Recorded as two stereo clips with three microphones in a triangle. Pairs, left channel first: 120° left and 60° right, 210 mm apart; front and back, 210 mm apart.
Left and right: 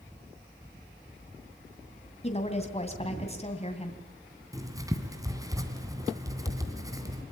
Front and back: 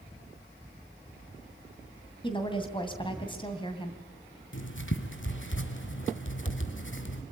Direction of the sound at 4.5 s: 15° left.